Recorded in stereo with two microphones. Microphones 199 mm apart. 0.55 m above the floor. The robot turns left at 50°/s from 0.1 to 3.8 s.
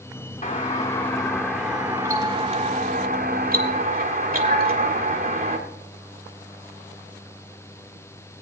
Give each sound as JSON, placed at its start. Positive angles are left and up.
{"t": 0.4, "sound": "a doorbell", "azimuth_deg": 65, "distance_m": 1.5}